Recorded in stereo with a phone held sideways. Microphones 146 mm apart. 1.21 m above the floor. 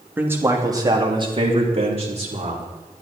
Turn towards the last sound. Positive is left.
turn(degrees=-50)  # may be behind; listen again after turning